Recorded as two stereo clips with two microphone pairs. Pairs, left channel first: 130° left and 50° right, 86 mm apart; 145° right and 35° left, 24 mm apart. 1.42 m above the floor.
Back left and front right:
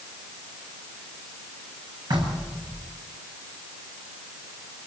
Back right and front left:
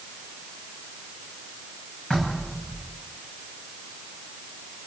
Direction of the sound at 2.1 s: 85° right.